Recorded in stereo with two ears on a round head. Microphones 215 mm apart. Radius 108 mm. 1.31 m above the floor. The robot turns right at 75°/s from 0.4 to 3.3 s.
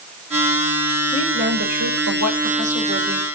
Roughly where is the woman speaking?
Behind.